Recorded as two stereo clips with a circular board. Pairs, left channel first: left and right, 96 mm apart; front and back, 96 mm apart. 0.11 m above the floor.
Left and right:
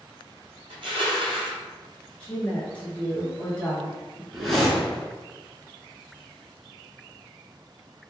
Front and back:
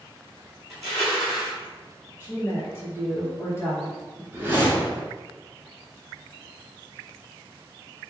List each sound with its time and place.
0.7 s crushing: 120° right, 1.8 m
2.2 s a woman speaking: 25° left, 1.8 m
4.3 s a whoosh: 175° left, 1.2 m